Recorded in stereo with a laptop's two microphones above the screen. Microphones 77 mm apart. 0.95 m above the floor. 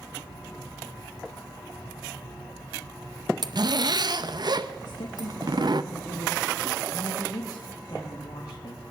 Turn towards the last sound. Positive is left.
turn(degrees=60)  # may be behind; listen again after turning